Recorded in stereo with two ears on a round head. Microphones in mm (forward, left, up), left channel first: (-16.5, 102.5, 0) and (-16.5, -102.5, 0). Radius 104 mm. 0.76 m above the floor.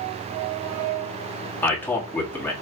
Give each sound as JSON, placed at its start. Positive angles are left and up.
{"t": 1.6, "sound": "a man speaking", "side_deg": 10, "distance_m": 1.7}